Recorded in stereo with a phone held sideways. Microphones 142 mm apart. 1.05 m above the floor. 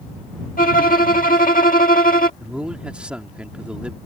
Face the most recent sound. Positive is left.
turn(degrees=-5)  # may be behind; listen again after turning